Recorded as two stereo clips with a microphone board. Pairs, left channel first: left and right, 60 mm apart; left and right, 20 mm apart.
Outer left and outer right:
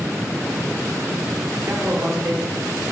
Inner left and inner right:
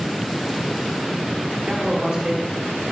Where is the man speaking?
60° right (ahead or behind), 4 m.